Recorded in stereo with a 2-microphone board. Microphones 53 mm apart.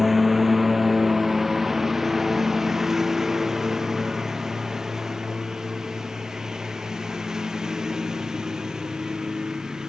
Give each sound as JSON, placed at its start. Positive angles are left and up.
{"t": 0.0, "sound": "a lawn mower", "side_deg": 0}